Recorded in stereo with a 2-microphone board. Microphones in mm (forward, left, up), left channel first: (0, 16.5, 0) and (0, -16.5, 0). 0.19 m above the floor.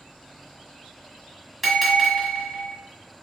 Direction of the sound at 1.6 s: Centre (ahead or behind).